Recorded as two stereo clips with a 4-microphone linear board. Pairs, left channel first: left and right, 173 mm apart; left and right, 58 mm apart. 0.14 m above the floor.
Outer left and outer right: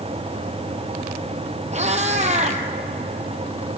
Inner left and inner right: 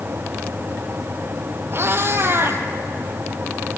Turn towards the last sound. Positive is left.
turn(degrees=-40)  # may be behind; listen again after turning